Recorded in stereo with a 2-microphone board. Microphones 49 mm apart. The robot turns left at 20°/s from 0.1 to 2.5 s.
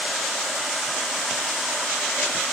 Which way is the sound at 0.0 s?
170° left.